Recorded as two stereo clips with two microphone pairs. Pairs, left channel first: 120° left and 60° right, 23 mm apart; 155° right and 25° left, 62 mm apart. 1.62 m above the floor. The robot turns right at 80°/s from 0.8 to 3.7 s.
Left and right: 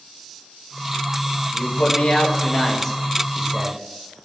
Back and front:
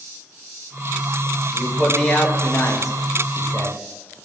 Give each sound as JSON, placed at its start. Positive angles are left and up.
{"t": 1.5, "sound": "a man speaking", "azimuth_deg": 80, "distance_m": 1.5}